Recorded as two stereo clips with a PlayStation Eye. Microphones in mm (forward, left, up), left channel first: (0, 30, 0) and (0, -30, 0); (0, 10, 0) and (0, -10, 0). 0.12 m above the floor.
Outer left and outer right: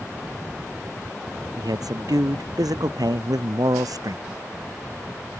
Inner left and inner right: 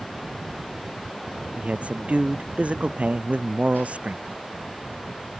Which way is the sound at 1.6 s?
85° right.